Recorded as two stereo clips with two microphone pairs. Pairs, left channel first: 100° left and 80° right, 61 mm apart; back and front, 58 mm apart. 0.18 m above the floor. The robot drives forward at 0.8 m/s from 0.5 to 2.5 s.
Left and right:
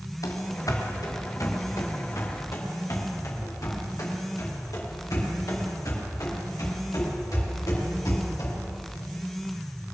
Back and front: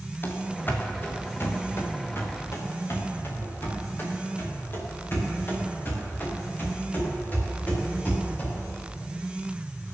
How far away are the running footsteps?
About 2.5 m.